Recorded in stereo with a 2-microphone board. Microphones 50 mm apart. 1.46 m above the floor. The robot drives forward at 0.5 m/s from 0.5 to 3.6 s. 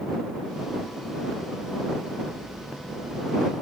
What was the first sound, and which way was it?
Only background noise.